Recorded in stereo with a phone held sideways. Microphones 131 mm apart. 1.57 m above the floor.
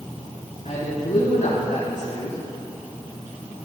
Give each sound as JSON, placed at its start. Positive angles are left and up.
{"t": 0.7, "sound": "a man speaking", "side_deg": 80, "distance_m": 3.5}